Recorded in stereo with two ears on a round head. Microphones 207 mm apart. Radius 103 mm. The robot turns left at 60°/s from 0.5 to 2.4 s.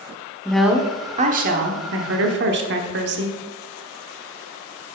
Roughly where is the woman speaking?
Ahead.